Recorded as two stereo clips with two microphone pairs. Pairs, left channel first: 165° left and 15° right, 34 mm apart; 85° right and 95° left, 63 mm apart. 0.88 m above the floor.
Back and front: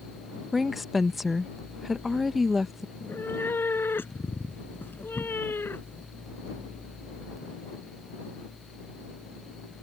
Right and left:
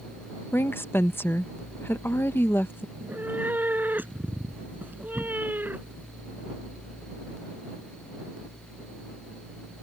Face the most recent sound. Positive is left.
turn(degrees=155)